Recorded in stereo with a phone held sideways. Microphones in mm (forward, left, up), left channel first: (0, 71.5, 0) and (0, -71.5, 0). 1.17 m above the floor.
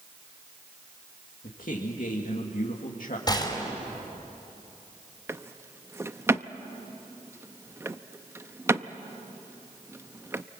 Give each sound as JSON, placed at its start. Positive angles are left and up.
{"t": 1.4, "sound": "a man speaking", "side_deg": 70, "distance_m": 2.0}
{"t": 3.3, "sound": "a gunshot", "side_deg": 30, "distance_m": 4.0}
{"t": 5.3, "sound": "a drawer", "side_deg": -20, "distance_m": 0.6}